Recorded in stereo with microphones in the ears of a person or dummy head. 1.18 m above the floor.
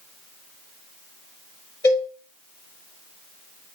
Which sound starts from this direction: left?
A cowbell, at 1.8 s.